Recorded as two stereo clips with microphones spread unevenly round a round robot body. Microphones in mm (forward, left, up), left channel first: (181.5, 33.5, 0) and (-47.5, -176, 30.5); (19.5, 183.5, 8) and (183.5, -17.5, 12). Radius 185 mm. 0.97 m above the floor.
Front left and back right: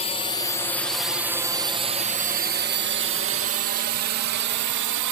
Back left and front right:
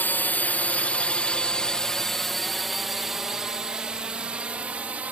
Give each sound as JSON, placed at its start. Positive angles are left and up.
{"t": 0.0, "sound": "a drone", "azimuth_deg": 55}